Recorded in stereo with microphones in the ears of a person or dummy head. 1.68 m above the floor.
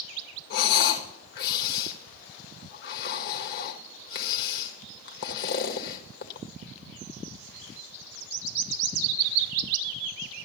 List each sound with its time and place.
0.5 s breathing: 65° left (ahead or behind), 1.6 m